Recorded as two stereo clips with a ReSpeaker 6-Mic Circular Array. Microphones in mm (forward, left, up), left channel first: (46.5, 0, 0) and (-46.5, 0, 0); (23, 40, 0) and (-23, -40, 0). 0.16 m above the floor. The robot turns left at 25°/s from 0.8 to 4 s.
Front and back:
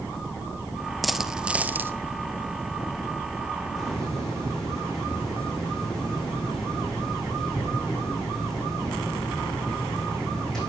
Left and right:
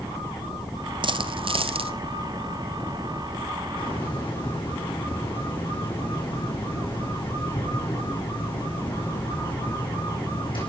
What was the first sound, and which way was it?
A dropped coin, 90° right.